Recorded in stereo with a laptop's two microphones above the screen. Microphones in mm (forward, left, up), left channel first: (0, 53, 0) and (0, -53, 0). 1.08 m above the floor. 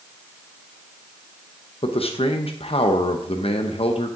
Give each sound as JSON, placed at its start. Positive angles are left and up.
{"t": 1.8, "sound": "a man speaking", "side_deg": 65, "distance_m": 0.9}